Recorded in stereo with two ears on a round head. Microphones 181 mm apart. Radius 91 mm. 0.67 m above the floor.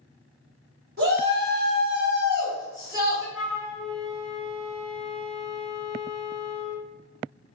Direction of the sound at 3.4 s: 5° left (ahead or behind).